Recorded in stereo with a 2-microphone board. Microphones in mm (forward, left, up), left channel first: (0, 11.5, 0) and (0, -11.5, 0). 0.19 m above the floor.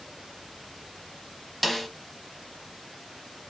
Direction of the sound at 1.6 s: 10° left (ahead or behind).